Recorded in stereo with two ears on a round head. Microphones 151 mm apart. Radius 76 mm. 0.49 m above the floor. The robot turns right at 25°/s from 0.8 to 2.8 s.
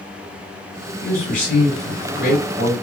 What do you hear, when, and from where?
1.0 s a man speaking: 70° left, 1.9 m; by 2.7 s 115° left, 1.9 m